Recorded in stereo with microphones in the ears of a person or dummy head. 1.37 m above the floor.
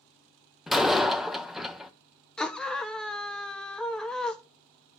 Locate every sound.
0.7 s a door slam: centre (ahead or behind), 0.5 m
2.4 s a scream: 5° left (ahead or behind), 1.1 m